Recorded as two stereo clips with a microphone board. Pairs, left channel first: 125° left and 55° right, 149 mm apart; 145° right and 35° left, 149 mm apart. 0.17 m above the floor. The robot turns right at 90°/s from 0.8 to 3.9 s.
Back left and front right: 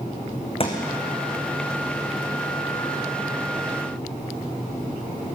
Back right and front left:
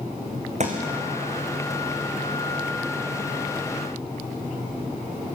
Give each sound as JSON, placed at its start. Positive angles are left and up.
{"t": 0.6, "sound": "a thud", "azimuth_deg": 75, "distance_m": 4.0}